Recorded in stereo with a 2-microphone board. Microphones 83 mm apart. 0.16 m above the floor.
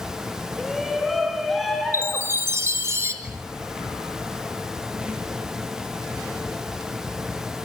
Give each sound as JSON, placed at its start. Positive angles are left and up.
{"t": 0.6, "sound": "a shout", "side_deg": 0, "distance_m": 1.9}
{"t": 1.9, "sound": "a chime", "side_deg": -35, "distance_m": 1.9}
{"t": 3.2, "sound": "a squeak", "side_deg": -15, "distance_m": 6.0}